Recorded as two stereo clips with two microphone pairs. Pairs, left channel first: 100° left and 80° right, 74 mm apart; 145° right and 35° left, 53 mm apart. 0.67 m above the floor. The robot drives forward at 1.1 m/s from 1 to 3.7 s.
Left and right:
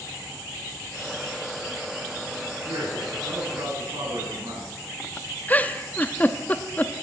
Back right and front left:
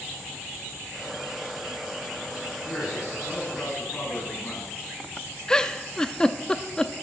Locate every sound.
2.6 s a man speaking: 80° right, 7.5 m; by 4.7 s 85° right, 7.5 m
5.5 s a giggle: 150° left, 0.7 m